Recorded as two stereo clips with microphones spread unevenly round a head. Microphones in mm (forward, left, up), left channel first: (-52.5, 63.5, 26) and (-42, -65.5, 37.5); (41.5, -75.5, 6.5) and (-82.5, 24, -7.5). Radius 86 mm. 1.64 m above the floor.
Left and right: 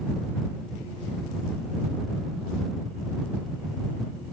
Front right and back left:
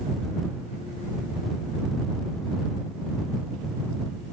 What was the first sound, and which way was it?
Only background noise.